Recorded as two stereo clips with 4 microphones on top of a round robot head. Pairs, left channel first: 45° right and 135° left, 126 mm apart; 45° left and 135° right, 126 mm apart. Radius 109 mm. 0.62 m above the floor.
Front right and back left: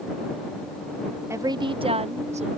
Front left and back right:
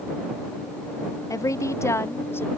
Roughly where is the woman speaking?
Left.